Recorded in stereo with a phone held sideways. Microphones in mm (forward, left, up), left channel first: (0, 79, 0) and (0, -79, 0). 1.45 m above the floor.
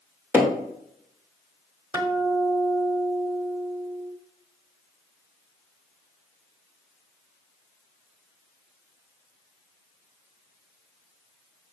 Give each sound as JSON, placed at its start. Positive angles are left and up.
{"t": 0.3, "sound": "hammering", "side_deg": -10, "distance_m": 2.0}
{"t": 1.9, "sound": "a guitar", "side_deg": -25, "distance_m": 1.4}